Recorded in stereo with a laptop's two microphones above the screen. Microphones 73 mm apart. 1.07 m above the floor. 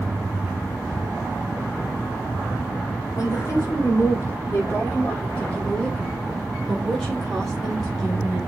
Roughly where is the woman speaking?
Left.